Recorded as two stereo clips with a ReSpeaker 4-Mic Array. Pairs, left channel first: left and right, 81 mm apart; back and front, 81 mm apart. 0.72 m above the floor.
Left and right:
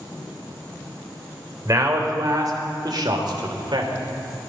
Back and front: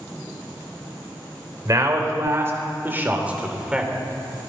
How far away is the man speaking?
About 3 m.